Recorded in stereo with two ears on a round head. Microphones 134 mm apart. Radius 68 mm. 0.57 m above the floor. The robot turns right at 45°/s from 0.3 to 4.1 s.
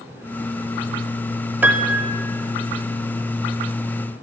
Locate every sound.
1.6 s a piano: 10° right (ahead or behind), 0.6 m; by 2.2 s 35° right (ahead or behind), 0.6 m